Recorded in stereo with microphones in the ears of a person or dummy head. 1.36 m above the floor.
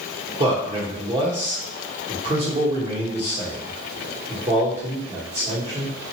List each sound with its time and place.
0.4 s a man speaking: 30° right (ahead or behind), 1.1 m